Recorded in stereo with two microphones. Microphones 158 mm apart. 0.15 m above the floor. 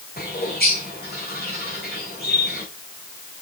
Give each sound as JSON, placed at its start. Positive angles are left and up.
{"t": 0.2, "sound": "a bird", "side_deg": 80, "distance_m": 5.5}